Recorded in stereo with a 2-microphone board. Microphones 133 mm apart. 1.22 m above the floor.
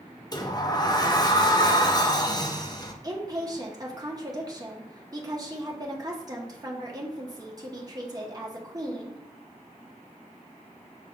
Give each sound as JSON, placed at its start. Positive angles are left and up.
{"t": 0.3, "sound": "a sliding door", "side_deg": 30, "distance_m": 0.5}
{"t": 3.0, "sound": "a woman speaking", "side_deg": -30, "distance_m": 0.9}